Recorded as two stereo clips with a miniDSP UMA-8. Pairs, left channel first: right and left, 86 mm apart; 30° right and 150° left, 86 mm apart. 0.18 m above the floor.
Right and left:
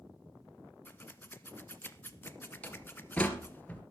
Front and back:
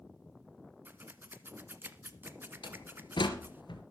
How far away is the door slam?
About 2.5 m.